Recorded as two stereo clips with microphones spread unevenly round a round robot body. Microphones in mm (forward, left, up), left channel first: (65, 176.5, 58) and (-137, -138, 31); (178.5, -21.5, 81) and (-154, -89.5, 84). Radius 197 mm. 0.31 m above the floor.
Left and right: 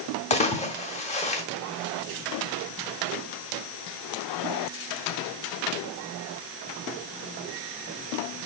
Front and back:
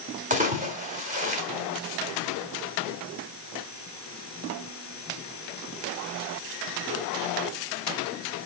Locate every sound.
0.3 s a splash: 130° left, 2.0 m